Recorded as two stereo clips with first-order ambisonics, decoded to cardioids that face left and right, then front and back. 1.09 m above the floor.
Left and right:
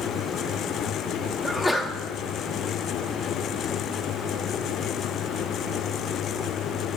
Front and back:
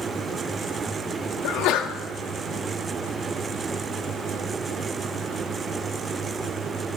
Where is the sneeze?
10° left, 0.7 m.